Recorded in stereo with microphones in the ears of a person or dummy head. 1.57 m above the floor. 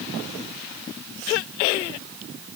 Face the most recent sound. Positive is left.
No sound to turn to.